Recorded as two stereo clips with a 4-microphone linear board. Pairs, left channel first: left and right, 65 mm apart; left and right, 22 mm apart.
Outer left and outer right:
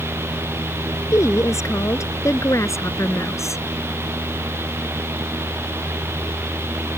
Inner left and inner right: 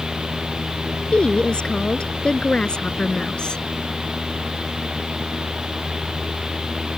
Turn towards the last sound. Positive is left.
turn(degrees=50)  # may be behind; listen again after turning